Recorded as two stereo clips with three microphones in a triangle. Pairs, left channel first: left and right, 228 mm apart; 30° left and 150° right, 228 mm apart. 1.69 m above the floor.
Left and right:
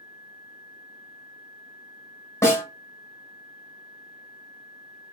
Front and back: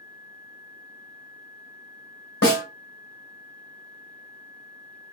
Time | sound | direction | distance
2.4 | a snare drum | 15° left | 1.3 m